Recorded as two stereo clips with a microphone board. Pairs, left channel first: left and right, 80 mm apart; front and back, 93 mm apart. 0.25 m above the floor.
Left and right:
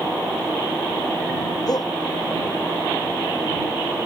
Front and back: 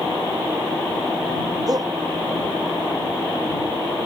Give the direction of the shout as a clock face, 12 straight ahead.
8 o'clock.